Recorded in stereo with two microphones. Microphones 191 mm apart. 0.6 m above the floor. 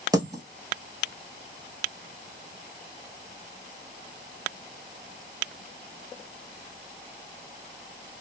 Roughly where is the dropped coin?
Centre.